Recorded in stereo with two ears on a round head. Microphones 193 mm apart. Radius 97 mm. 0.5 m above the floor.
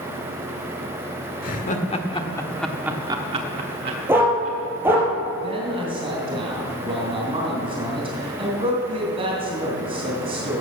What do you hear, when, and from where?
1.4 s laughter: 40° left (ahead or behind), 1.6 m; by 4.6 s 60° right (ahead or behind), 1.8 m
4.1 s a dog barking: 10° right (ahead or behind), 3.5 m
5.4 s a man speaking: 25° right (ahead or behind), 3 m